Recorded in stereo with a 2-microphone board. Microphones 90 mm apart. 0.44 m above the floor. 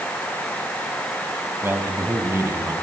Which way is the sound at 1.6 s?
25° right (ahead or behind).